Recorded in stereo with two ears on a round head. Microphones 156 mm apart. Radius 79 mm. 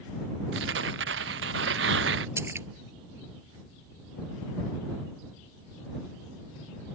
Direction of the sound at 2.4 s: 15° right (ahead or behind).